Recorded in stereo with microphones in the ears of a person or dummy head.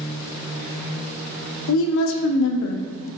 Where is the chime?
I don't hear a chime.